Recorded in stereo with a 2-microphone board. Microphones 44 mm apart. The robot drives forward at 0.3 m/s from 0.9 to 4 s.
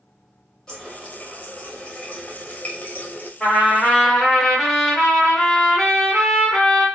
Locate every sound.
0.7 s a running tap: 20° left (ahead or behind), 1.1 m; by 3.3 s 45° left (ahead or behind), 0.5 m
3.4 s a trumpet: 5° right (ahead or behind), 1.5 m